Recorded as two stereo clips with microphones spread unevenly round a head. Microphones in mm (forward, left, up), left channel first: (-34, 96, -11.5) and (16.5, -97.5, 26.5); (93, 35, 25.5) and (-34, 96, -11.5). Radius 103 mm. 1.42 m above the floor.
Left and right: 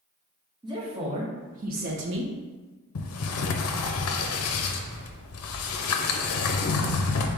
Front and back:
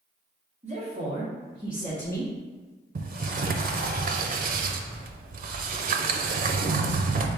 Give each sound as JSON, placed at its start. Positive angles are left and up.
{"t": 0.6, "sound": "a woman speaking", "azimuth_deg": -140, "distance_m": 1.7}
{"t": 3.0, "sound": "a sliding door", "azimuth_deg": 125, "distance_m": 0.5}